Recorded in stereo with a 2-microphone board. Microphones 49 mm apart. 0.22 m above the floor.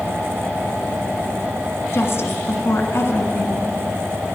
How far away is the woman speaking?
About 1.8 m.